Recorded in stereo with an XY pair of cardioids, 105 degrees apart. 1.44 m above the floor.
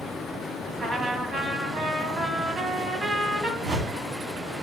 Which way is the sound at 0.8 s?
55° right.